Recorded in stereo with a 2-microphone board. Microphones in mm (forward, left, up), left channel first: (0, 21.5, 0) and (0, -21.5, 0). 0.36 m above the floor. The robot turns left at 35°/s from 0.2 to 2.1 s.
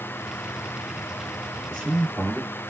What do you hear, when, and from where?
1.7 s a man speaking: 5° right (ahead or behind), 1.9 m; by 2.6 s 20° right (ahead or behind), 1.9 m